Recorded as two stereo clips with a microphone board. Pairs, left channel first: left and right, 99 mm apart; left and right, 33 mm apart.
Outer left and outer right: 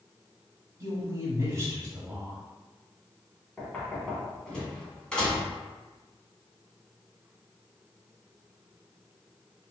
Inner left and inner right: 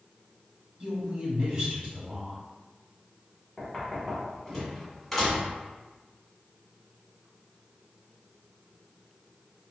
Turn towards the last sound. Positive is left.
turn(degrees=10)  # may be behind; listen again after turning